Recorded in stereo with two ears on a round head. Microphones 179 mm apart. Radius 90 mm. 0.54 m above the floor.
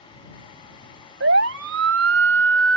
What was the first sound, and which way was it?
A siren, 65° right (ahead or behind).